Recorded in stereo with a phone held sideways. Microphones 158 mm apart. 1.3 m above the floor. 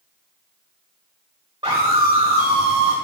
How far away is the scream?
About 3.5 m.